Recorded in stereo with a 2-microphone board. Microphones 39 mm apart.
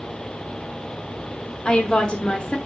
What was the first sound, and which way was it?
A woman speaking, 20° left (ahead or behind).